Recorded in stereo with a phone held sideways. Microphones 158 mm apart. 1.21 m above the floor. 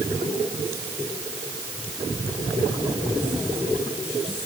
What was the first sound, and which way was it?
Only background noise.